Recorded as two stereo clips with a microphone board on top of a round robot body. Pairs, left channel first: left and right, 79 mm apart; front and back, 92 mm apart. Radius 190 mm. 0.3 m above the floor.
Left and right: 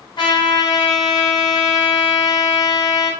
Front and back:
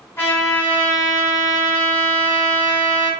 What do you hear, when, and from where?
0.2 s a trumpet: 70° left, 1.0 m